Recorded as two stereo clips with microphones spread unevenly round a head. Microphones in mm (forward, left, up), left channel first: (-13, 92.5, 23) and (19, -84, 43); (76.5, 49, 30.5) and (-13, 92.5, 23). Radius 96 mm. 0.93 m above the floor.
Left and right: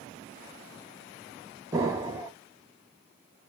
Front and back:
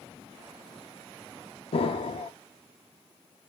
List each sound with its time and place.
1.7 s an explosion: 10° right, 0.7 m